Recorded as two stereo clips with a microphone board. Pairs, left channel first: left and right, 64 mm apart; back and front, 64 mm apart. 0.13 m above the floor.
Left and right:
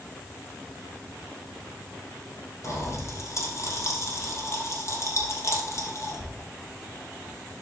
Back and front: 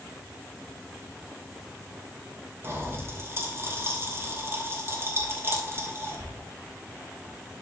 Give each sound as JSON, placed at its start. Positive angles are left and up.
{"t": 2.6, "sound": "a pop", "azimuth_deg": 50, "distance_m": 3.0}